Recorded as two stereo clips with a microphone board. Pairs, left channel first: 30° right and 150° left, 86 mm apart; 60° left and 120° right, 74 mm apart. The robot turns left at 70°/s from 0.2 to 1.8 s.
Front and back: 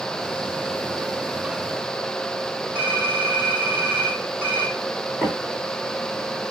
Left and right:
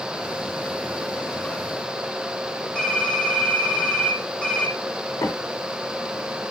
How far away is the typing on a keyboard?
About 1.5 m.